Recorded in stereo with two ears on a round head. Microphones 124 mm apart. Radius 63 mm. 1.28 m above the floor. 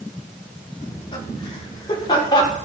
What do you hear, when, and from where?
0.8 s laughter: 40° left (ahead or behind), 4 m; by 2.6 s 30° left (ahead or behind), 5 m